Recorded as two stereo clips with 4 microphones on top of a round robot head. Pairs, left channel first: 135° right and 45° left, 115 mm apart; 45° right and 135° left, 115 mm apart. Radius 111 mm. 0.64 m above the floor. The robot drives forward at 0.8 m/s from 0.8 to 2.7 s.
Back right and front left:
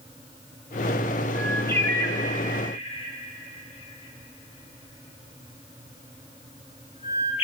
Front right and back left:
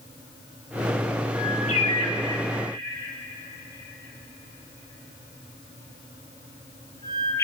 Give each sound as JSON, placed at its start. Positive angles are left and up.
{"t": 1.3, "sound": "a bird", "azimuth_deg": -55, "distance_m": 1.5}